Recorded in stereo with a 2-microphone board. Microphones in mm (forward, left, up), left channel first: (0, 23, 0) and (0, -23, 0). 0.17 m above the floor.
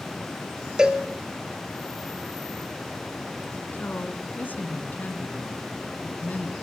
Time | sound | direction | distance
0.8 | a cowbell | 15° right (ahead or behind) | 1.8 m
3.7 | a woman speaking | 40° left (ahead or behind) | 2 m